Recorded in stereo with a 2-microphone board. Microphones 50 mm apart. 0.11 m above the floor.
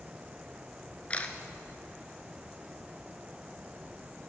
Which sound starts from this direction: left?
A camera shutter, at 1.1 s.